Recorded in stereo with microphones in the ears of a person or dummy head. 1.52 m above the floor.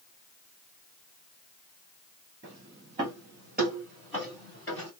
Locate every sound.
2.4 s footsteps: 25° right (ahead or behind), 1.7 m; by 4.9 s 15° left (ahead or behind), 1.9 m